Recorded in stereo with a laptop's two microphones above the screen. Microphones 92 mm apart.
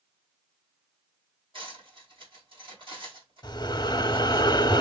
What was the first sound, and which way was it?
Cutlery clinking, 70° right (ahead or behind).